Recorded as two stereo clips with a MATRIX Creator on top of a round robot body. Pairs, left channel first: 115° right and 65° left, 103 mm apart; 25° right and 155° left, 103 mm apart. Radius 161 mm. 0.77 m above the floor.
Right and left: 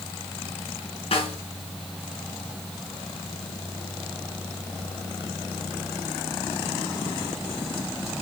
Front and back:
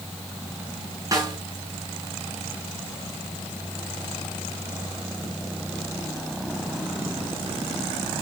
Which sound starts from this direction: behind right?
A snare drum, at 1.1 s.